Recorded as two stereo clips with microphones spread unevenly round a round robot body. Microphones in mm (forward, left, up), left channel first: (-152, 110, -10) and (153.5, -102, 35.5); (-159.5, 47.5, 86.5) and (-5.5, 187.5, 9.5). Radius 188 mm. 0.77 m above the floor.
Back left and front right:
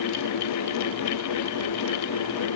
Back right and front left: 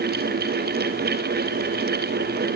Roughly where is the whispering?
I don't hear whispering.